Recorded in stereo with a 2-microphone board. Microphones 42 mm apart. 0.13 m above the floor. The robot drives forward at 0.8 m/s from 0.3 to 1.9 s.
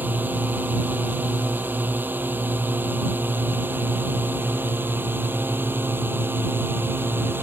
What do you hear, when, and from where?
0.0 s a drone: 50° right (ahead or behind); by 7.4 s 60° right (ahead or behind)